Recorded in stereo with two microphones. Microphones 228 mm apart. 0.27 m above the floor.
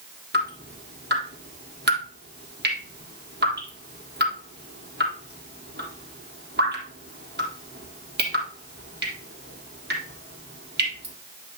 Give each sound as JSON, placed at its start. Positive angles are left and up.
{"t": 0.3, "sound": "dripping", "side_deg": -50, "distance_m": 3.5}